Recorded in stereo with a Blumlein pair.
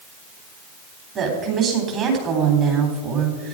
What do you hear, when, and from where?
1.1 s a woman speaking: 30° right, 4 m